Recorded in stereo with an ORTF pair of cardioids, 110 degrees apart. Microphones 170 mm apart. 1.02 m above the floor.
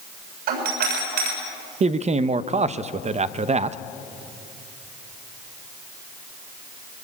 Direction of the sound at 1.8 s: 45° right.